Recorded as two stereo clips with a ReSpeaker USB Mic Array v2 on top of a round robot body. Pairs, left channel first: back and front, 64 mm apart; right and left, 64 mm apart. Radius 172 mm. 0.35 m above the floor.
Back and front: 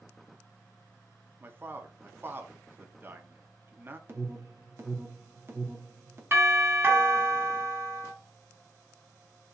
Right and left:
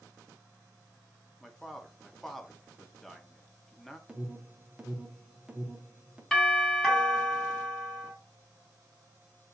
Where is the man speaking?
5° right, 0.9 m.